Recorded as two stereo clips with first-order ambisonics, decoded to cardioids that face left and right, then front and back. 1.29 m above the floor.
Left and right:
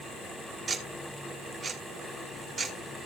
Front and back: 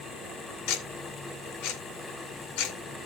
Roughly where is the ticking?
Ahead.